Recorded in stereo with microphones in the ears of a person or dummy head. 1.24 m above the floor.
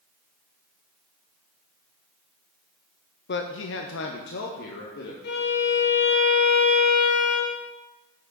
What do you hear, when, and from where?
3.3 s a man speaking: 45° left (ahead or behind), 0.6 m; by 5.1 s 55° left (ahead or behind), 1.7 m
5.2 s a violin: 65° left (ahead or behind), 1.7 m